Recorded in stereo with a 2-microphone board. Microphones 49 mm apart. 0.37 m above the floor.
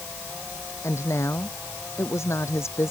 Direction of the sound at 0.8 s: 70° left (ahead or behind).